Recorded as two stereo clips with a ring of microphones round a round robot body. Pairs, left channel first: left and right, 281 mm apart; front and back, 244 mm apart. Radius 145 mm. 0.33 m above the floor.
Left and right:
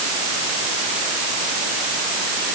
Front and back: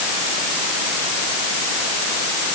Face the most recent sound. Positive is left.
No sound to turn to.